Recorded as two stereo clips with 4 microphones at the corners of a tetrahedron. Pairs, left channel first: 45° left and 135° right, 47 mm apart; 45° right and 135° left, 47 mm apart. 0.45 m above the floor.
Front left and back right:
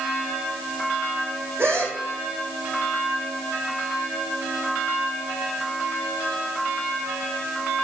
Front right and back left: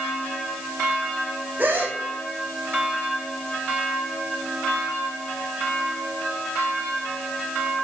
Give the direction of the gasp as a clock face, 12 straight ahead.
6 o'clock.